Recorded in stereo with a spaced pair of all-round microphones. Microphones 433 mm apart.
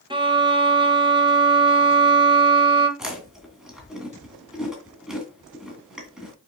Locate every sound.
0.1 s a violin: 10° right (ahead or behind), 1.3 m
3.0 s chewing: centre (ahead or behind), 2.5 m